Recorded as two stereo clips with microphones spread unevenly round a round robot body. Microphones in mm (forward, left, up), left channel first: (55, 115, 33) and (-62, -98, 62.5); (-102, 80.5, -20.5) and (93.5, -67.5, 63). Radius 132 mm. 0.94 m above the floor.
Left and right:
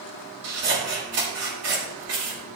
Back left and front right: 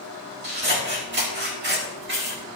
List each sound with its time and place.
0.4 s scissors: 85° right, 5 m